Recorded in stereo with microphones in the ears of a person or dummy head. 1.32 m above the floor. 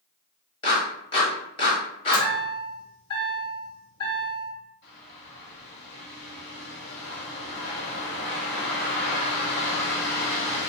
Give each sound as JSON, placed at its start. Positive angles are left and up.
{"t": 0.6, "sound": "a clap", "side_deg": 30, "distance_m": 1.7}
{"t": 2.1, "sound": "a chime", "side_deg": 30, "distance_m": 2.0}
{"t": 4.8, "sound": "a bird", "side_deg": 55, "distance_m": 1.9}